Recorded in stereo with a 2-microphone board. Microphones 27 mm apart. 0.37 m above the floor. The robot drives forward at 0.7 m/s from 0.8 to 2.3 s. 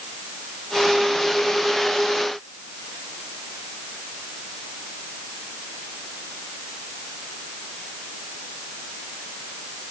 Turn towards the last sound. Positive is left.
No sound to turn to.